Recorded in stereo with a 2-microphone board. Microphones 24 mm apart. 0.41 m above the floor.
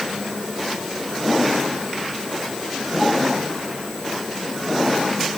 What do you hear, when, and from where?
Only background noise.